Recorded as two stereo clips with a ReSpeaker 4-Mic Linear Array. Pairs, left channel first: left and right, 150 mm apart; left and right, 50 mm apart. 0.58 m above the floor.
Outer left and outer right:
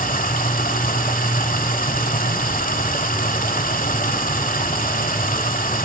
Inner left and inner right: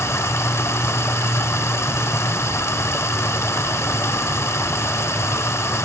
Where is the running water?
65° left (ahead or behind), 1.5 m.